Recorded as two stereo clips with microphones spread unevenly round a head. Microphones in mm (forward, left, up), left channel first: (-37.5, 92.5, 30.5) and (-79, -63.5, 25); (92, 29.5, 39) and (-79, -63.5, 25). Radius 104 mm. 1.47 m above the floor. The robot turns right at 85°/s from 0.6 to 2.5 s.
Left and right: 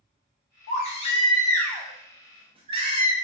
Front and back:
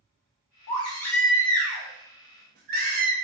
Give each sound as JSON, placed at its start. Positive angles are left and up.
{"t": 0.7, "sound": "a baby crying", "azimuth_deg": 65, "distance_m": 0.5}